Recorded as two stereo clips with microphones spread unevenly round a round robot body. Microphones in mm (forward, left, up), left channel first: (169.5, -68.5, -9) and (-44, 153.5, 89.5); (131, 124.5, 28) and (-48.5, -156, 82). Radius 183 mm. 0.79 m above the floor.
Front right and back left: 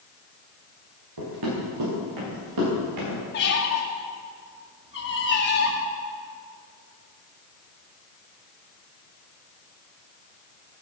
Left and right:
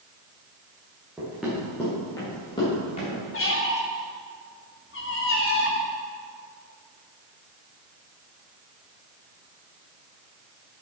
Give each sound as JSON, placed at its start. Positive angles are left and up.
{"t": 1.2, "sound": "running footsteps", "azimuth_deg": 155, "distance_m": 5.0}
{"t": 3.3, "sound": "a squeak", "azimuth_deg": 5, "distance_m": 1.9}